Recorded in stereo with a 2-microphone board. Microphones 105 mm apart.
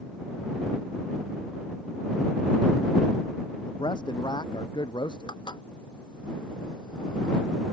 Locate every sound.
3.6 s a man speaking: 45° left (ahead or behind)
5.3 s dishes clattering: 45° left (ahead or behind)